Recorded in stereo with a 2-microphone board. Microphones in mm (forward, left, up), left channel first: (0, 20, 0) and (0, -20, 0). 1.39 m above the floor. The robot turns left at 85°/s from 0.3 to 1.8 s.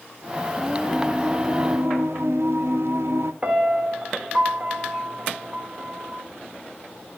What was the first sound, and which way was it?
Singing, 10° left.